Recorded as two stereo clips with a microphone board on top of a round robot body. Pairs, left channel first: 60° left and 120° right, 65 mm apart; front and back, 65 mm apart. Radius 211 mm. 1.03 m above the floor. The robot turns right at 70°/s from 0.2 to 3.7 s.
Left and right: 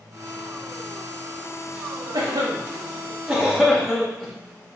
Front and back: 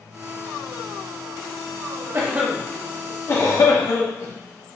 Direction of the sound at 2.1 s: 125° right.